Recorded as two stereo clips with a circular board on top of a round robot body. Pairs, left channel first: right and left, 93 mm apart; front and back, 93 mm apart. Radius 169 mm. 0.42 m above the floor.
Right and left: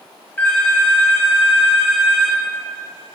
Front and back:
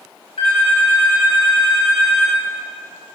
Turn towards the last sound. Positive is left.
turn(degrees=-20)